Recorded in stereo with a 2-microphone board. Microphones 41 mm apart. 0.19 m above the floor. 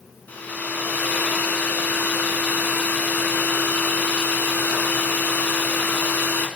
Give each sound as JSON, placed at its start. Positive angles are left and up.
{"t": 0.3, "sound": "a hair dryer", "side_deg": 45, "distance_m": 1.3}